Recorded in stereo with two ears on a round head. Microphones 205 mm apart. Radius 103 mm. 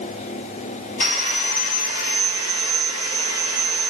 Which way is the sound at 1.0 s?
30° left (ahead or behind).